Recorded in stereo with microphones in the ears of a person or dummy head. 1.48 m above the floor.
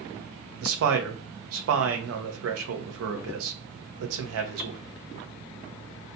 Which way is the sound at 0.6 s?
80° right.